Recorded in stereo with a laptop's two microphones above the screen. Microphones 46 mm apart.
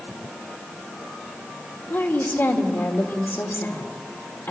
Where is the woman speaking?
60° left (ahead or behind), 3.5 m.